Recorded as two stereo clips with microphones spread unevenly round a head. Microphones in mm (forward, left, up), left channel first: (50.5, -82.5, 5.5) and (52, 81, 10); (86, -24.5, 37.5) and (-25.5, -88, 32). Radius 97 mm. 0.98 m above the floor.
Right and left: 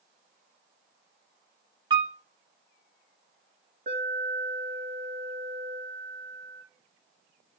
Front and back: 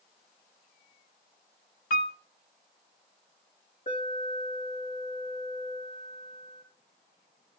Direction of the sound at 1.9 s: 25° left.